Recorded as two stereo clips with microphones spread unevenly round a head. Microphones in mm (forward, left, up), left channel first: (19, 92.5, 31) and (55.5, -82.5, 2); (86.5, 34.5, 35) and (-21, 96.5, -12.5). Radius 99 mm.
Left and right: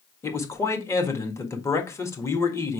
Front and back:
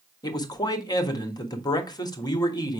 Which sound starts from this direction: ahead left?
A man speaking, at 0.2 s.